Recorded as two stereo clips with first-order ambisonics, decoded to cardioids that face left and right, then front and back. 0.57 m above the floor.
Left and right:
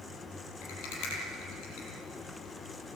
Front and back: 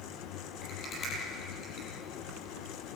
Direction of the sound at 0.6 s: 60° left.